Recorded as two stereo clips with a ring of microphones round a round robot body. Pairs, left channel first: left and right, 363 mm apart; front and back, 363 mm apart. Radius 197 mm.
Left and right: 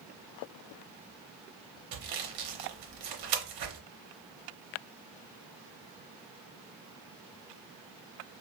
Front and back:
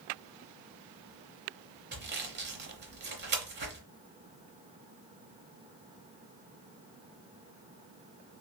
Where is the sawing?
115° right, 0.9 m.